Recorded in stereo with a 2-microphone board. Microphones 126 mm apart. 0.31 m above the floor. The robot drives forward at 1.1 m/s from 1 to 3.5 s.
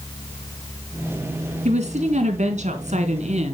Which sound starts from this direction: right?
A woman speaking, at 1.6 s.